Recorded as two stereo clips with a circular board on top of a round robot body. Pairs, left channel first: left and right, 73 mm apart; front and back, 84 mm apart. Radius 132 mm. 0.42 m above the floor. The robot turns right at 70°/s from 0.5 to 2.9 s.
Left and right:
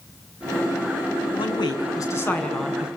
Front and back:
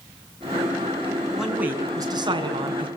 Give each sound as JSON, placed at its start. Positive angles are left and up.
{"t": 1.4, "sound": "a man speaking", "azimuth_deg": 90, "distance_m": 6.0}